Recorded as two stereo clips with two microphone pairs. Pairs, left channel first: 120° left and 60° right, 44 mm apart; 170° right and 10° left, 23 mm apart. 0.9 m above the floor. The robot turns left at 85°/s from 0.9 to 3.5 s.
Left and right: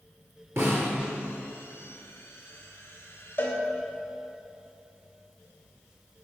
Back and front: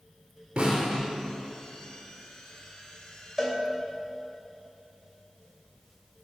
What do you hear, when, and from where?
0.6 s a snare drum: 40° right, 5 m
3.4 s a cowbell: 90° left, 2.5 m; by 3.6 s 80° left, 2.5 m